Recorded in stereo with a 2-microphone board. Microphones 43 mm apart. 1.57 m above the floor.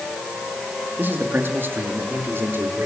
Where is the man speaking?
50° right (ahead or behind), 4 m; by 2.9 s 70° right (ahead or behind), 6 m.